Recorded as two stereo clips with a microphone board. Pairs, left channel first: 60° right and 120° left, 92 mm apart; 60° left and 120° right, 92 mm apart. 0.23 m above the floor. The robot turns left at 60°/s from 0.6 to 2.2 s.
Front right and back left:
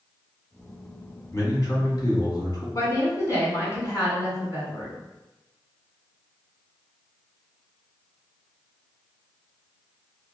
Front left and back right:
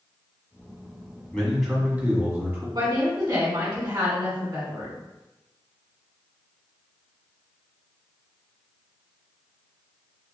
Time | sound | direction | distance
1.3 | a man speaking | 15° right | 1.5 m
2.8 | a woman speaking | 105° right | 1.8 m